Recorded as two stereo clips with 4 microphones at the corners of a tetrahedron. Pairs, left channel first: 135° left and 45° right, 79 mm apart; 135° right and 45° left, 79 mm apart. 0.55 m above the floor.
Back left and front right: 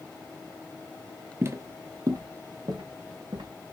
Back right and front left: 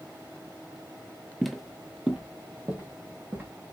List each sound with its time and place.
1.4 s footsteps: 50° right, 0.6 m; by 3.5 s 20° right, 1.6 m